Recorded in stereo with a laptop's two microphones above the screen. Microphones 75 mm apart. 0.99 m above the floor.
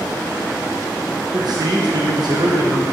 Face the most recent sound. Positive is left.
turn(degrees=-65)  # may be behind; listen again after turning